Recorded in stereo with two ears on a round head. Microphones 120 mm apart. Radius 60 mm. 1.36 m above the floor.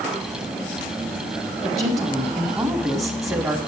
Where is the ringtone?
I don't hear a ringtone.